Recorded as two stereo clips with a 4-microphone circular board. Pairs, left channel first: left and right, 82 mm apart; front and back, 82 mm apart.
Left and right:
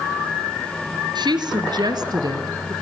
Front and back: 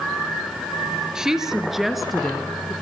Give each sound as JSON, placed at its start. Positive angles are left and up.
{"t": 1.1, "sound": "a woman speaking", "azimuth_deg": -100, "distance_m": 4.0}